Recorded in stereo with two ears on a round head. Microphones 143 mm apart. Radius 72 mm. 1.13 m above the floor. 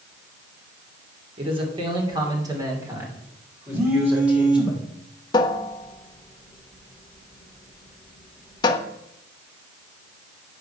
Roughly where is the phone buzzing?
Centre.